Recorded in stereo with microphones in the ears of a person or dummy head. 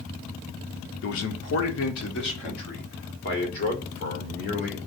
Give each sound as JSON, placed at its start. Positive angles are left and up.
{"t": 1.0, "sound": "a man speaking", "side_deg": 75, "distance_m": 0.8}